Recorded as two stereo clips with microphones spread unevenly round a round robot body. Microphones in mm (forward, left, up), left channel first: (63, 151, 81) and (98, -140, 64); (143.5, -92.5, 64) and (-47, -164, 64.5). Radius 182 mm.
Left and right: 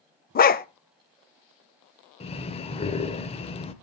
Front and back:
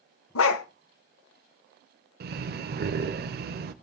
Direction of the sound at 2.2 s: 170° left.